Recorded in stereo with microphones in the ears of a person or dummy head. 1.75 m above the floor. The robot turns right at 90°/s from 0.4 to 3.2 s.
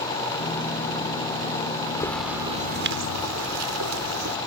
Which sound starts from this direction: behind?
A bird, at 2.0 s.